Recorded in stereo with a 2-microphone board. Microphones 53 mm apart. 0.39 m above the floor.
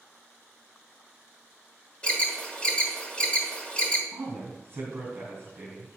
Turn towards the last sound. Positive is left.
turn(degrees=-50)  # may be behind; listen again after turning